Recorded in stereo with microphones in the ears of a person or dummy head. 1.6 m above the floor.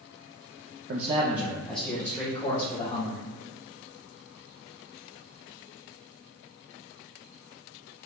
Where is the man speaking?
50° right (ahead or behind), 0.6 m; by 3.2 s 20° left (ahead or behind), 3 m.